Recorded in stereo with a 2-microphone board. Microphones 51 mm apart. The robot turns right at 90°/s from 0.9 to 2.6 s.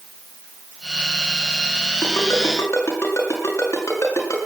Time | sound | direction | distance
2.0 | a ringtone | 50° left (ahead or behind) | 7 m